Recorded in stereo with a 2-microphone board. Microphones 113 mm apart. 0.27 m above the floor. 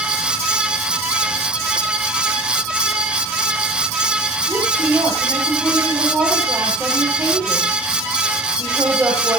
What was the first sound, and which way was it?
A woman speaking, 20° right (ahead or behind).